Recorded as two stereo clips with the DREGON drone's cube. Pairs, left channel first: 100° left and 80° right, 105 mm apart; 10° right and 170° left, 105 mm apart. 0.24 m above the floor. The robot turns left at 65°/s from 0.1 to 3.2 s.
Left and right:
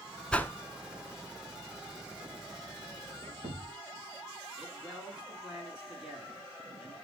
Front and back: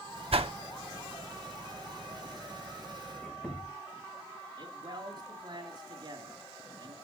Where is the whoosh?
Straight behind, 0.7 m; by 0.5 s 165° left, 0.7 m.